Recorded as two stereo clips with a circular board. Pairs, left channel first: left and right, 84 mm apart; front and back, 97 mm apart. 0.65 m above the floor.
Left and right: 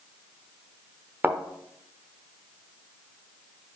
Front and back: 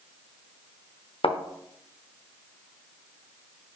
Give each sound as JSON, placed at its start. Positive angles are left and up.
{"t": 1.2, "sound": "a thud", "azimuth_deg": -20, "distance_m": 0.8}